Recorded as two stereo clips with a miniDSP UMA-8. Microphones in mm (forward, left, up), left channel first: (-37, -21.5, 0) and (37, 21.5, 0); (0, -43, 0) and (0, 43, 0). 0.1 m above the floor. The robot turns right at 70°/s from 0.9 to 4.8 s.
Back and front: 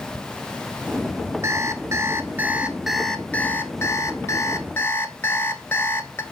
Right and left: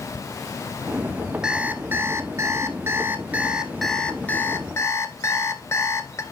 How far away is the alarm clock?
About 0.9 m.